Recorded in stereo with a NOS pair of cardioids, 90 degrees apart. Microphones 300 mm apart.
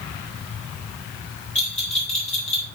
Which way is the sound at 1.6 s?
20° left.